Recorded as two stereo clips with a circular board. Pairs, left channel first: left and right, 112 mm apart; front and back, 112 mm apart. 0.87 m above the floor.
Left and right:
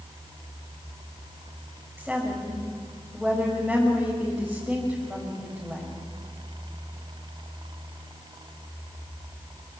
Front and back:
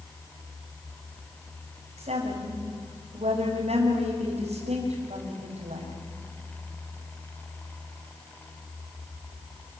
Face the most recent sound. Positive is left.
turn(degrees=180)